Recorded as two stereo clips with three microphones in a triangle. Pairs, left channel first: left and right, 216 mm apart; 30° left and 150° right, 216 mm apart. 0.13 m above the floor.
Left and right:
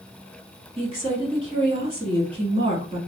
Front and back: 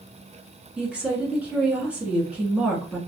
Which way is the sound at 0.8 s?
75° right.